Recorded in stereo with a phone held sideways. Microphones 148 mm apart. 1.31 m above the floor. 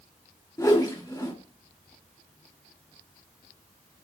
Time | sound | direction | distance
0.6 | a whoosh | 25° left (ahead or behind) | 2.5 m